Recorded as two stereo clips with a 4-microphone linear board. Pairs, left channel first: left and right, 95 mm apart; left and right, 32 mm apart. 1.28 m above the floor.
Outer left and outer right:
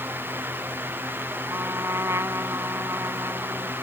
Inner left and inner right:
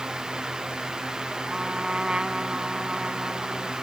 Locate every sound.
1.5 s a trumpet: 30° right (ahead or behind)